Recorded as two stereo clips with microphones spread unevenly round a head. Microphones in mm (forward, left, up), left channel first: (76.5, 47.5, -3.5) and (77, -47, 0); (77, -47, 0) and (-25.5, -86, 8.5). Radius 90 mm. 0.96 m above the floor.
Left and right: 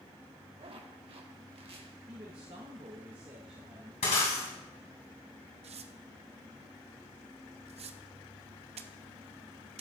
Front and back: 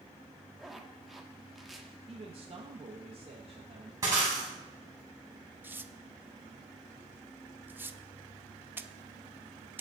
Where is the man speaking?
130° right, 1.1 m.